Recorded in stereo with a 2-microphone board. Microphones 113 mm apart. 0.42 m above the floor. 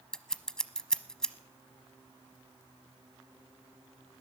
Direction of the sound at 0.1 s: 5° left (ahead or behind).